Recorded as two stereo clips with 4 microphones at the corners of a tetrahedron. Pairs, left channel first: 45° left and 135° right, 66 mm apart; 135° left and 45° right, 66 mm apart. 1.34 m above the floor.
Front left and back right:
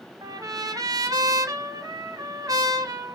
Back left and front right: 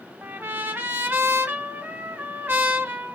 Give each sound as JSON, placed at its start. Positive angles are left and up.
{"t": 0.2, "sound": "a trumpet", "azimuth_deg": -105, "distance_m": 0.7}